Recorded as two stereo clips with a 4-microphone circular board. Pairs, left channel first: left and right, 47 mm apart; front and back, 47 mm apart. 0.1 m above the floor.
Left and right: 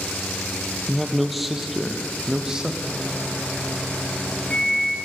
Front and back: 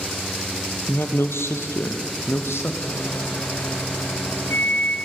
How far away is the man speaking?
About 2 m.